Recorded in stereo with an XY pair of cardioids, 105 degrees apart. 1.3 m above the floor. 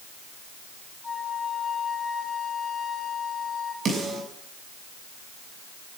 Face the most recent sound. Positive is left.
turn(degrees=-50)